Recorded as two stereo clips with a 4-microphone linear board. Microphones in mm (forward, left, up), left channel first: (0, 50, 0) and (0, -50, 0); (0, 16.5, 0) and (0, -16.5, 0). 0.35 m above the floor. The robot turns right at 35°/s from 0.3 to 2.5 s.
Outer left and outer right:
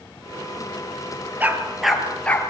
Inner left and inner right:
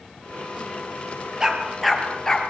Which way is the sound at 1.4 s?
20° right (ahead or behind).